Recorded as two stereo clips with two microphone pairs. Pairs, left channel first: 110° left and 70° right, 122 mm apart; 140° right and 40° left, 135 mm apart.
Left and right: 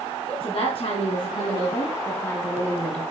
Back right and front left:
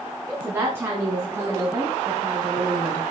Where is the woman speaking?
115° left, 2.5 m; by 3.0 s 35° left, 1.8 m.